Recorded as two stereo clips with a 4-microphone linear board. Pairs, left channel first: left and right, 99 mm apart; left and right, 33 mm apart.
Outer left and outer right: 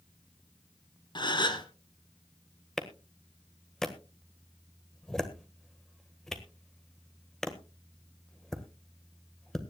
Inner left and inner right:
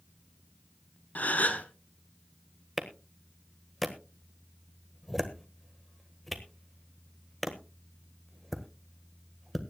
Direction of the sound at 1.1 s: 50° left (ahead or behind).